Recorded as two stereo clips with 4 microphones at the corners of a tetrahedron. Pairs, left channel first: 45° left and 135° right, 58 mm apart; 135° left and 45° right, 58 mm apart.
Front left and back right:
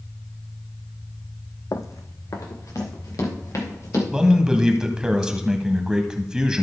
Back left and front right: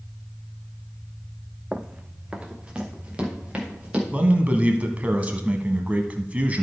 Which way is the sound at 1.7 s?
30° left.